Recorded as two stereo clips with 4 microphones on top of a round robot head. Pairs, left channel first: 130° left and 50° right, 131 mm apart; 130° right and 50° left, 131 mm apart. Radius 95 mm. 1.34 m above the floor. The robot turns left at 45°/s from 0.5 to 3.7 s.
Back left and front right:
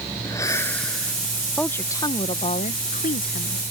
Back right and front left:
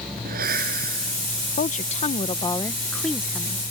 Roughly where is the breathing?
Ahead left.